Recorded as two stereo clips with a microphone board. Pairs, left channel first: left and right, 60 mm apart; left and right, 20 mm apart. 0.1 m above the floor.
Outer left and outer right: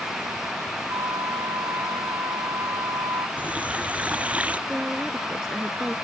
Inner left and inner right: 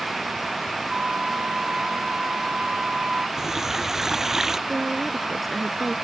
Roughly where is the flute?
Right.